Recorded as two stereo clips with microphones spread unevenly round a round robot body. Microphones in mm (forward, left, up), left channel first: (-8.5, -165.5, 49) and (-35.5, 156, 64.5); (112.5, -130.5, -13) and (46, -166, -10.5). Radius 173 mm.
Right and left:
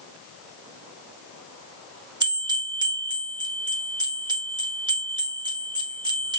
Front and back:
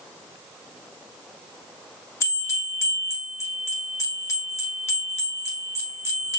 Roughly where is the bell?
Ahead.